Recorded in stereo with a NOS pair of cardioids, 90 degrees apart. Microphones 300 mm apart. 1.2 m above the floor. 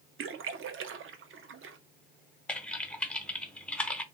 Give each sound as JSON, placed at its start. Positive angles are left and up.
{"t": 0.2, "sound": "a splash", "azimuth_deg": -45, "distance_m": 0.6}
{"t": 2.5, "sound": "typing on a keyboard", "azimuth_deg": 5, "distance_m": 0.5}